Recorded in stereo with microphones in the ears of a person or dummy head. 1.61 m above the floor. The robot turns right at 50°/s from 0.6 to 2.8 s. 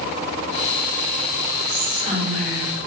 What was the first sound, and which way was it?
Whispering, 140° left.